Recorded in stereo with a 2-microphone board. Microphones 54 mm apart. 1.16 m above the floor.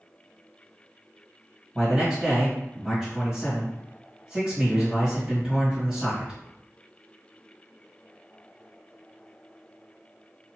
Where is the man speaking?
20° right (ahead or behind), 1.6 m.